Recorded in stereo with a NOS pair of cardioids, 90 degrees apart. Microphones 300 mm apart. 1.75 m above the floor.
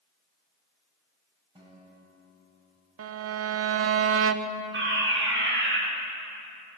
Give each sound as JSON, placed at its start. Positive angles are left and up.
{"t": 1.6, "sound": "a guitar", "azimuth_deg": -15, "distance_m": 9.0}
{"t": 3.0, "sound": "a violin", "azimuth_deg": -50, "distance_m": 1.2}
{"t": 4.7, "sound": "a fire alarm", "azimuth_deg": -40, "distance_m": 8.5}